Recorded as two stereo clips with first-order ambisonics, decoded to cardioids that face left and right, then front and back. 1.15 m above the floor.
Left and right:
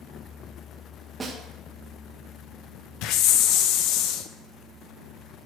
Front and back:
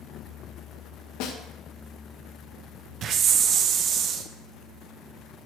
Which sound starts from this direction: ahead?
A snare drum, at 1.2 s.